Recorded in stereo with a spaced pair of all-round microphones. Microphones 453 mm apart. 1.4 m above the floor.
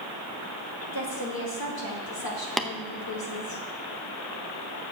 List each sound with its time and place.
0.9 s a woman speaking: 50° left (ahead or behind), 2.5 m
2.6 s tapping: centre (ahead or behind), 0.7 m